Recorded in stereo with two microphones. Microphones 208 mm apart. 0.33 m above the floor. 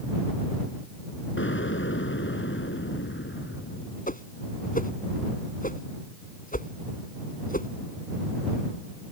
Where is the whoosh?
40° left (ahead or behind).